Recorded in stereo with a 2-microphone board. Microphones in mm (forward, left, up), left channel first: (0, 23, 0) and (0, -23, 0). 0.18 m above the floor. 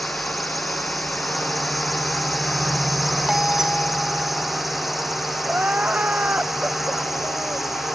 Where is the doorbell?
10° right (ahead or behind).